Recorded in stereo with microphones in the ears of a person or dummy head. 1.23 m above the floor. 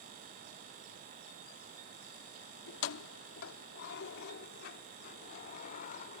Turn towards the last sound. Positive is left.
turn(degrees=45)  # may be behind; listen again after turning